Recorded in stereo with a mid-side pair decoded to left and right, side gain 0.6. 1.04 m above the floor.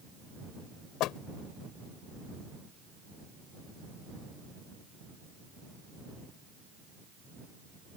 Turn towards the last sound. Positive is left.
turn(degrees=65)